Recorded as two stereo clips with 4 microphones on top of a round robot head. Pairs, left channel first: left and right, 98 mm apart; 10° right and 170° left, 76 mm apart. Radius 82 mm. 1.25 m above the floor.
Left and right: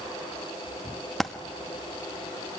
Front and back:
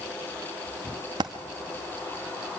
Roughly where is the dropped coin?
Behind.